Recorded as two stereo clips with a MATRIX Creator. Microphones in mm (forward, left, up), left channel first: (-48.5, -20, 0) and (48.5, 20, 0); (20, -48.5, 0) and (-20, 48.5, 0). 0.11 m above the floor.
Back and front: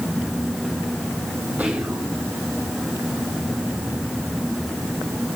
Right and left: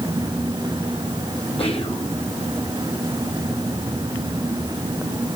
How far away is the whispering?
About 4.5 m.